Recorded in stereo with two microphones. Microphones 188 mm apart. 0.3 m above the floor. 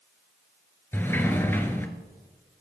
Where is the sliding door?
10° left (ahead or behind), 1.2 m.